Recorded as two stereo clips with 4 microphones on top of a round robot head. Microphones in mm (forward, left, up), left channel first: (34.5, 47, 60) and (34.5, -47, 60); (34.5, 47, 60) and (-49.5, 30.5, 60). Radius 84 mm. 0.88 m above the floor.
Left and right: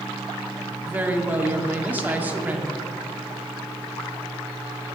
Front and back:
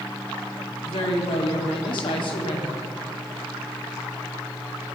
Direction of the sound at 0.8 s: 20° right.